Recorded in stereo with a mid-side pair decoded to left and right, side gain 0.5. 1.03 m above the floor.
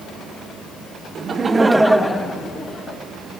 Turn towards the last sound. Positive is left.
turn(degrees=35)